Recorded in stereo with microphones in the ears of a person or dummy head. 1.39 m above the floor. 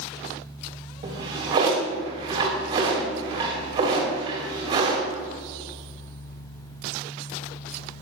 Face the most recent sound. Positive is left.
turn(degrees=-30)  # may be behind; listen again after turning